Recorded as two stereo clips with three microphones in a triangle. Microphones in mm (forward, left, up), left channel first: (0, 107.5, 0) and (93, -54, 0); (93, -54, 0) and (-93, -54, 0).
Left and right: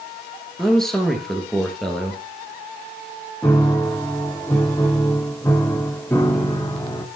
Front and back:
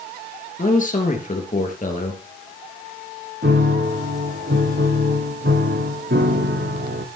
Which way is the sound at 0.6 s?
30° left.